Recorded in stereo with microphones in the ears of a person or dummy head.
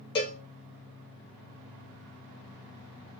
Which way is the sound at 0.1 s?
25° left (ahead or behind).